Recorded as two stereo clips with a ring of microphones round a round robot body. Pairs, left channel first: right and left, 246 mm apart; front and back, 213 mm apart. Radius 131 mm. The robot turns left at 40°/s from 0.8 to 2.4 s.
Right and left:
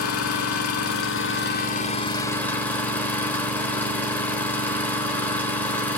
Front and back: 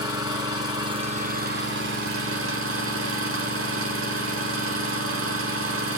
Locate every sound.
0.0 s an engine running: 110° right, 1.3 m; by 6.0 s 175° right, 1.3 m